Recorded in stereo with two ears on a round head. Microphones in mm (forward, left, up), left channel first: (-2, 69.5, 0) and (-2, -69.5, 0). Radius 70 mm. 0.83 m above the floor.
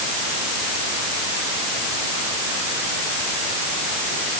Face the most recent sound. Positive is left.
No sound to turn to.